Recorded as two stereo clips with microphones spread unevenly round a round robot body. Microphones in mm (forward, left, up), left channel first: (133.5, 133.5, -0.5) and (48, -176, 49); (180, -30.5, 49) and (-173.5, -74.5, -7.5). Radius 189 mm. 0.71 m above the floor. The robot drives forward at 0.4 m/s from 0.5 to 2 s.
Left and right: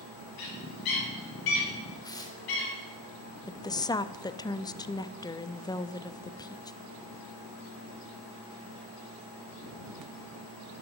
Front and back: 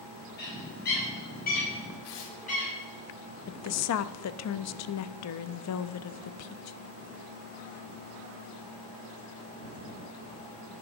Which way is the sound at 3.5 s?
20° left.